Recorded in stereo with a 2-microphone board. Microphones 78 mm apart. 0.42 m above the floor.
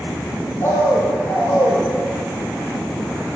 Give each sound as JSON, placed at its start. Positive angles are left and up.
{"t": 0.6, "sound": "a bird", "side_deg": 40, "distance_m": 1.0}